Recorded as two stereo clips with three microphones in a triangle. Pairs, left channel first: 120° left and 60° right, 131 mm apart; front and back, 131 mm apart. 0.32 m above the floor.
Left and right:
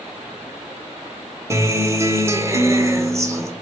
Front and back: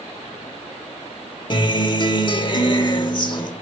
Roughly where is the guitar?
Ahead.